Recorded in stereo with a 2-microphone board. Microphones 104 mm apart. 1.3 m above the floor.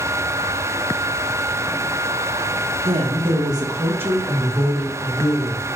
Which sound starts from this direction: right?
A woman speaking, at 2.9 s.